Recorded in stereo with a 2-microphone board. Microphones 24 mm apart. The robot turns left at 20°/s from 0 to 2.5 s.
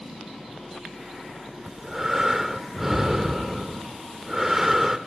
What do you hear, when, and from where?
1.7 s breathing: 20° right (ahead or behind), 0.7 m; by 5.0 s 15° right (ahead or behind), 0.7 m